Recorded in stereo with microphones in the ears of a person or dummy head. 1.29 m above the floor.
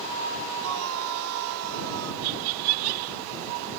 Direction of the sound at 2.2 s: 75° right (ahead or behind).